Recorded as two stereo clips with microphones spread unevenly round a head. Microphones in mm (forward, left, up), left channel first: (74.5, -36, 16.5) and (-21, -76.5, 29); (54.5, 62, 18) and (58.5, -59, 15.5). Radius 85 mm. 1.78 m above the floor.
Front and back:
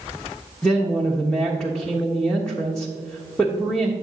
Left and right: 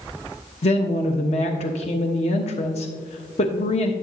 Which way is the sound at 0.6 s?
115° left.